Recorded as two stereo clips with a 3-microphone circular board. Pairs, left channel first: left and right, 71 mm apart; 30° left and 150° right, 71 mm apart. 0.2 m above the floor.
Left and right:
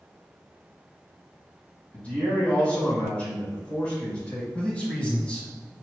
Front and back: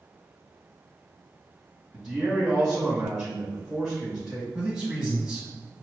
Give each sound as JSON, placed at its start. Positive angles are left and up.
{"t": 1.9, "sound": "a man speaking", "azimuth_deg": 130, "distance_m": 1.7}
{"t": 4.5, "sound": "a man speaking", "azimuth_deg": 145, "distance_m": 1.1}